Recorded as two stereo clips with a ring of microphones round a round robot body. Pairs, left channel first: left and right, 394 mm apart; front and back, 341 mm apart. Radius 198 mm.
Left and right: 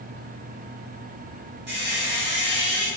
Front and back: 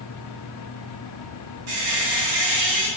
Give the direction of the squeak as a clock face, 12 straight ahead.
5 o'clock.